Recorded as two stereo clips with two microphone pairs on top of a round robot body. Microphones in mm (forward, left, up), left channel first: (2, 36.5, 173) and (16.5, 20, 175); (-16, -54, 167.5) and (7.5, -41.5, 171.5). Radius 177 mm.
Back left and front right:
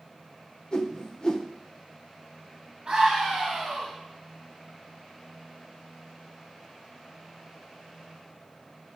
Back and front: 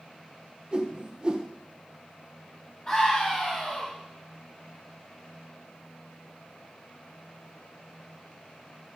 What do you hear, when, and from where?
0.7 s a whoosh: 95° left, 1.2 m
2.9 s a scream: 110° right, 3.5 m